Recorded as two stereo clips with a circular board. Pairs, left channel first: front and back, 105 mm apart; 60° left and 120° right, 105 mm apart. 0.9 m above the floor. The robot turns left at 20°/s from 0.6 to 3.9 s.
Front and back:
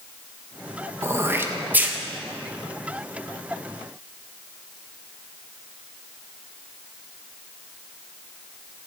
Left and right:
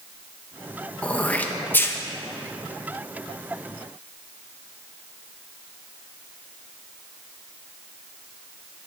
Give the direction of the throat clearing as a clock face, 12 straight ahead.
8 o'clock.